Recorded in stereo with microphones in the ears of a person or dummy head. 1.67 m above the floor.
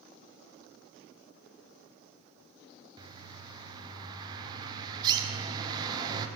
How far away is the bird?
About 0.9 m.